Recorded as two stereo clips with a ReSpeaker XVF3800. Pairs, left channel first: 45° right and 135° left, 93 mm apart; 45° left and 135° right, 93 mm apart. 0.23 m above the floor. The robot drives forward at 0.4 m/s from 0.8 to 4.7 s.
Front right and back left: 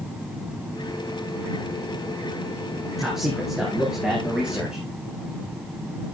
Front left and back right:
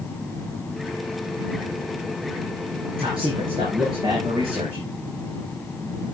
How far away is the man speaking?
About 4 m.